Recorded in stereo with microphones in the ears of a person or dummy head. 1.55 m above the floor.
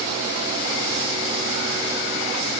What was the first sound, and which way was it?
Only background noise.